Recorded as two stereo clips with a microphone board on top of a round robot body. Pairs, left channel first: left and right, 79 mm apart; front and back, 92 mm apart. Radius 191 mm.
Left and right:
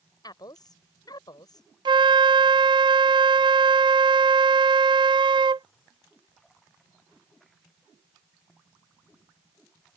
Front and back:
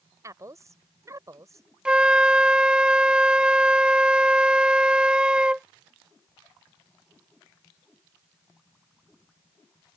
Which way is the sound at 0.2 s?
125° left.